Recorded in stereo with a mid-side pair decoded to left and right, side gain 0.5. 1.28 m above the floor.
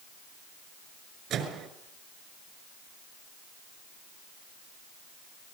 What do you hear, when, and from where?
1.3 s a microwave: 65° right, 6 m